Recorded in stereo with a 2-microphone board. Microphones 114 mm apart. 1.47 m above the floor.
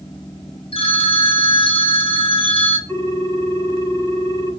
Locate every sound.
0.7 s a phone ringing: 55° left (ahead or behind), 0.6 m
2.9 s a ringtone: 25° left (ahead or behind), 2.5 m